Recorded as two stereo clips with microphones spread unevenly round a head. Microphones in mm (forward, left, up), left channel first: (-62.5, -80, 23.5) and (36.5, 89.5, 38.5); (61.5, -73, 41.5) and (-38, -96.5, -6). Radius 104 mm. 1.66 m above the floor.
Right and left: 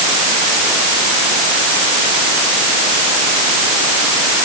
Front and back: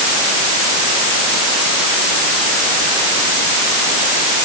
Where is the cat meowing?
No cat meowing in this recording.